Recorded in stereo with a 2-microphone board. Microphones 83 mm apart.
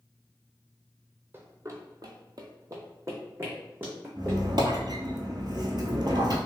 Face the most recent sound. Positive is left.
turn(degrees=-60)  # may be behind; listen again after turning